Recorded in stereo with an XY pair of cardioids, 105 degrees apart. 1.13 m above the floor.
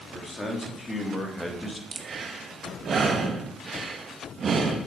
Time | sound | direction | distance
0.1 | a man speaking | 20° left | 3 m
1.9 | breathing | 45° right | 1.3 m